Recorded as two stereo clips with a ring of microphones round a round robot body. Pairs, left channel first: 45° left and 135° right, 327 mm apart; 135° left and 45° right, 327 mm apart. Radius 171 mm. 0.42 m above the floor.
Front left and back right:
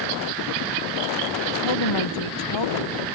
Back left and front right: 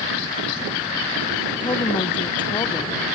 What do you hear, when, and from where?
1.6 s a woman speaking: 60° left